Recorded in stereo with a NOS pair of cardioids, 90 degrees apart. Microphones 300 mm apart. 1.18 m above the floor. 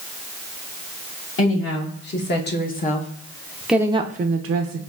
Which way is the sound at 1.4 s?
45° left.